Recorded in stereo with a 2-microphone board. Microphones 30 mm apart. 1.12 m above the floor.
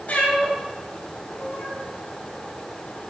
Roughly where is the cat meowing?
Left.